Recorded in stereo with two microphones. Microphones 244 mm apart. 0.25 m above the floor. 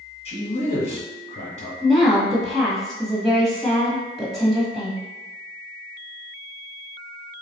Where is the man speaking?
30° left (ahead or behind), 1.8 m.